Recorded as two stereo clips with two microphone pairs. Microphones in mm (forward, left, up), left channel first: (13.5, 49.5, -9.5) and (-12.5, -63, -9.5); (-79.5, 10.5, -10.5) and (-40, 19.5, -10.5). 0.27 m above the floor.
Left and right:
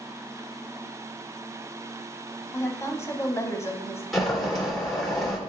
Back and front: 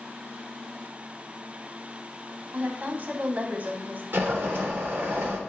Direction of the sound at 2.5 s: 20° left.